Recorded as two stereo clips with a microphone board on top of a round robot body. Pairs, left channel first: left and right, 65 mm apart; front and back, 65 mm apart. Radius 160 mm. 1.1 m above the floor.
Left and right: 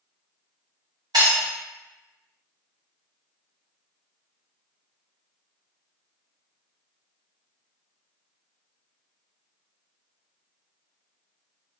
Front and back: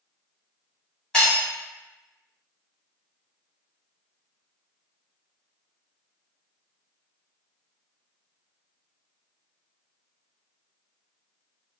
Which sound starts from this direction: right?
Breaking glass, at 1.1 s.